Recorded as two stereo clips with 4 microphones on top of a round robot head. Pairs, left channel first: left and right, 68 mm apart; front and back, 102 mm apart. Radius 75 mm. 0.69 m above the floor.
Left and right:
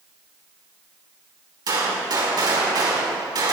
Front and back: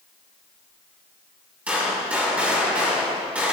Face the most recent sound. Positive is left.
turn(degrees=-100)